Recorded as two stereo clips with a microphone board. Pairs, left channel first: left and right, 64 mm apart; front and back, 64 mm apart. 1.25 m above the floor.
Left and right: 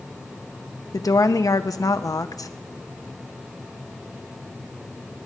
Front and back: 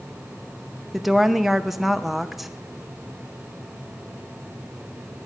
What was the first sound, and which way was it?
A woman speaking, 95° left.